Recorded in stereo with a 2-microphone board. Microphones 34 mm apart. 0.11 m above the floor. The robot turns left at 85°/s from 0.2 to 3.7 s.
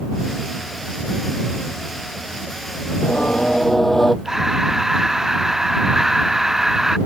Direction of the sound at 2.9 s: 80° left.